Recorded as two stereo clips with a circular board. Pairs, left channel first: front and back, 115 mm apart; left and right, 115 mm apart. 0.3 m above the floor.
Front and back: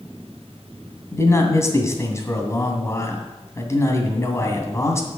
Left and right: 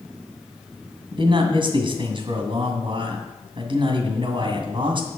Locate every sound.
1.1 s a man speaking: 60° right, 2 m